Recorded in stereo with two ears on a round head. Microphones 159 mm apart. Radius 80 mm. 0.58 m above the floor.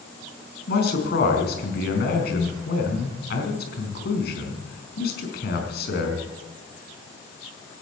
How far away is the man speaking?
About 4.5 m.